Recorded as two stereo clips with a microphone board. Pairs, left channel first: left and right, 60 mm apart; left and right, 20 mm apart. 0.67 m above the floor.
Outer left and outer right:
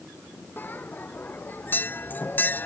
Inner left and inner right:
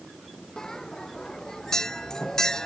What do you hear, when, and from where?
0.6 s a bell: 35° left (ahead or behind)